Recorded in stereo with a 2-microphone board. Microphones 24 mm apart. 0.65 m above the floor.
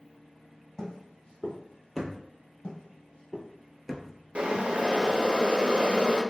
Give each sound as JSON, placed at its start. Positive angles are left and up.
{"t": 0.8, "sound": "footsteps", "side_deg": 25, "distance_m": 1.3}
{"t": 2.6, "sound": "footsteps", "side_deg": 55, "distance_m": 1.0}
{"t": 4.3, "sound": "boiling", "side_deg": -60, "distance_m": 0.5}